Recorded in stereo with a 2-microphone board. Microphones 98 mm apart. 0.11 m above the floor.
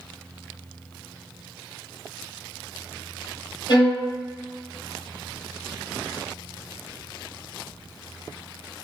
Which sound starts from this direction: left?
A violin, at 3.7 s.